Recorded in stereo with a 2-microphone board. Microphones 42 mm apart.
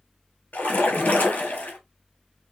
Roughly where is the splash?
Left.